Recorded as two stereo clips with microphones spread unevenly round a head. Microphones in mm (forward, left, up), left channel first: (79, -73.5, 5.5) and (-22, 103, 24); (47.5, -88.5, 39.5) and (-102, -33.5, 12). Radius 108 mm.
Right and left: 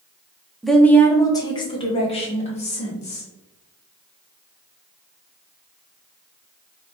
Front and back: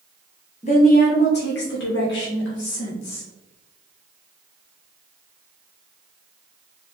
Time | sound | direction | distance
0.6 | a woman speaking | 30° left | 0.6 m